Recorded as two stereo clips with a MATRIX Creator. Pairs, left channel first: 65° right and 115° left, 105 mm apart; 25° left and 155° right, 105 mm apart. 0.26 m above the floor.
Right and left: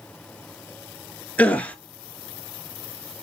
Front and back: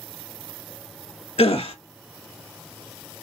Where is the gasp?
10° left, 0.6 m.